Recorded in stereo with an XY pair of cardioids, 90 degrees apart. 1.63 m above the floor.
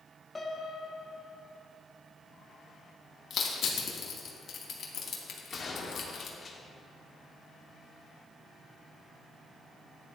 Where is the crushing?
60° left, 2 m.